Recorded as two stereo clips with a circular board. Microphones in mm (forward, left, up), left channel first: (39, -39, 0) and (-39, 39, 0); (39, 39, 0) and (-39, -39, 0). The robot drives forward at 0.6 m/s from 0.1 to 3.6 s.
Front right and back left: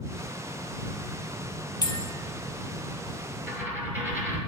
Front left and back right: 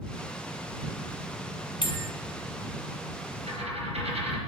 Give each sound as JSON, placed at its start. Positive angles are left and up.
{"t": 1.8, "sound": "a bell", "azimuth_deg": 5, "distance_m": 0.7}
{"t": 3.5, "sound": "a dropped coin", "azimuth_deg": -155, "distance_m": 1.7}